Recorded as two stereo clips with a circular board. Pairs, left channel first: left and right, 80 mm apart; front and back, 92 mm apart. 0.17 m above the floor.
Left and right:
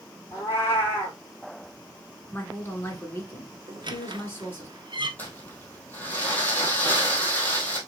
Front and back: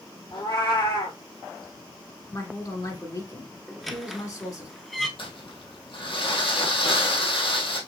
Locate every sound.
0.3 s a cat meowing: 30° left, 2 m
2.3 s a woman speaking: 35° left, 1.8 m
3.7 s a squeak: 90° right, 0.7 m
5.2 s crumpling: 25° left, 1.6 m